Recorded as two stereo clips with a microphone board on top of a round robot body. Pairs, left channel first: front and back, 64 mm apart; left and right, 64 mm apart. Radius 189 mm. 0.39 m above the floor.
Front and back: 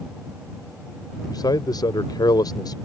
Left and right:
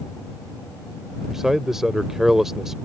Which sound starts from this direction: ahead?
A man speaking, at 1.3 s.